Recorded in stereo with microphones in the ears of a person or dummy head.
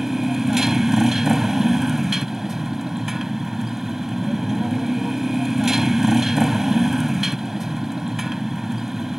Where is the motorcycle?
Centre (ahead or behind).